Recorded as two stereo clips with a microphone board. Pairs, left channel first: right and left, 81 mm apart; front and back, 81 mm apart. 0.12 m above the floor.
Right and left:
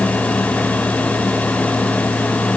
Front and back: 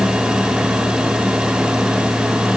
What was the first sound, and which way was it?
Only background noise.